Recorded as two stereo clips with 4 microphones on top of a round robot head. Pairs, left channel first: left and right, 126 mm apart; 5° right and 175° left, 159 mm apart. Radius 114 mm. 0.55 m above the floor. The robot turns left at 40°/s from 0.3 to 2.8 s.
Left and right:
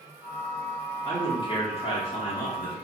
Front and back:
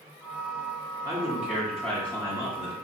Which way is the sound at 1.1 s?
110° left.